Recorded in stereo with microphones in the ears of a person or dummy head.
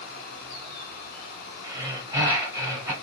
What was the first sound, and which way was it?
Breathing, 15° right (ahead or behind).